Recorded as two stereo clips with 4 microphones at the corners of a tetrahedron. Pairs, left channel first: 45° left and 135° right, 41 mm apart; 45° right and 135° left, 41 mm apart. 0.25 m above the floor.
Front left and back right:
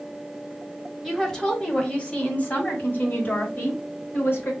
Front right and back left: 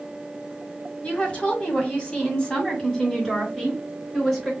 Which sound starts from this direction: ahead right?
A woman speaking, at 1.0 s.